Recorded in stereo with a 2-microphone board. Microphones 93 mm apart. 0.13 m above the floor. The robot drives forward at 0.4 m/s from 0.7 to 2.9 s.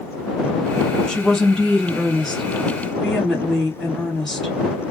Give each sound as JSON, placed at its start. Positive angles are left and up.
{"t": 1.1, "sound": "a woman speaking", "side_deg": 5, "distance_m": 1.1}